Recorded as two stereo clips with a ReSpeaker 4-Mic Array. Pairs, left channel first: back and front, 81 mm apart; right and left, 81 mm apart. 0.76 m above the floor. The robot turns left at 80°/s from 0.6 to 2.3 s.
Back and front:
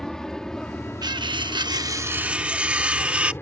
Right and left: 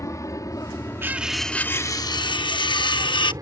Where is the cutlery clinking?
30° left; by 3.3 s 75° right.